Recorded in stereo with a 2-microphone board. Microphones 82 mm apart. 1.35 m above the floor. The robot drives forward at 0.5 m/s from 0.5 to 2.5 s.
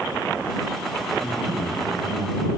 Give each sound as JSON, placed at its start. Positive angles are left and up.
{"t": 1.2, "sound": "a man speaking", "side_deg": -40, "distance_m": 8.0}